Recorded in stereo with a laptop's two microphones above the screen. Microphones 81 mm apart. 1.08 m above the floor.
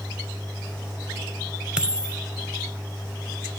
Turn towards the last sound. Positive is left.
turn(degrees=-10)  # may be behind; listen again after turning